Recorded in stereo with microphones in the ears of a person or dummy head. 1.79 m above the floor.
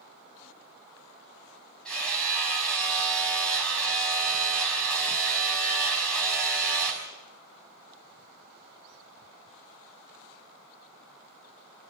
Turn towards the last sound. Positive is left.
turn(degrees=0)  # may be behind; listen again after turning